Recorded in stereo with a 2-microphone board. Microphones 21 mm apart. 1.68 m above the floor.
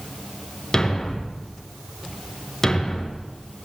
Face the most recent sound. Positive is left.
turn(degrees=20)  # may be behind; listen again after turning